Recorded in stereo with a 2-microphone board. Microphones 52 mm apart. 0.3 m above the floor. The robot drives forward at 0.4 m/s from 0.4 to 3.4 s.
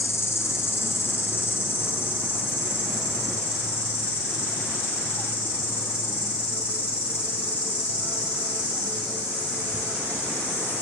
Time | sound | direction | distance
0.0 | an insect | 55° left (ahead or behind) | 1.2 m